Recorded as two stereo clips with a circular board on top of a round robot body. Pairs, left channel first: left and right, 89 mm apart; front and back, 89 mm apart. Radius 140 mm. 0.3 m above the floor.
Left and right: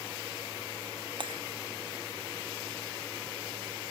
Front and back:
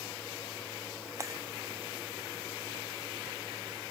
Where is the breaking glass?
120° right.